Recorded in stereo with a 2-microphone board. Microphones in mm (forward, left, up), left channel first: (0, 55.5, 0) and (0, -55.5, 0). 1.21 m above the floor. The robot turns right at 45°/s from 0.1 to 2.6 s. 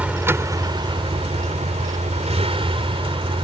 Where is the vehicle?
170° right; by 3.4 s 55° right.